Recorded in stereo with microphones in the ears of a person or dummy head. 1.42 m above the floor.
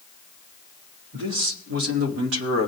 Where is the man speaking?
70° right (ahead or behind), 2.5 m.